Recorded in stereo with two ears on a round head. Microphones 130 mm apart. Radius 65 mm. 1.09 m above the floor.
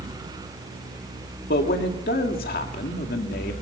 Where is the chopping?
I don't hear chopping.